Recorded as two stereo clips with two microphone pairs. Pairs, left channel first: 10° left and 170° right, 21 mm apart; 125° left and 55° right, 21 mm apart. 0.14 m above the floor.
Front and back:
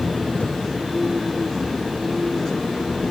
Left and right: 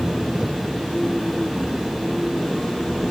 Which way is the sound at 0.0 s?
5° right.